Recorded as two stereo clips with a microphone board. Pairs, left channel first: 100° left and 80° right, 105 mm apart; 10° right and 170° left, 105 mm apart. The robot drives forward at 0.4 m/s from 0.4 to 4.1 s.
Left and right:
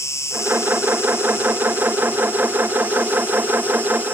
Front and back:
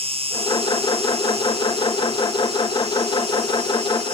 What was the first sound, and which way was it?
An insect, 160° left.